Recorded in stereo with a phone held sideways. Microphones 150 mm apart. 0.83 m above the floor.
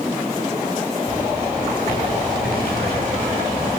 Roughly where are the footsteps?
Left.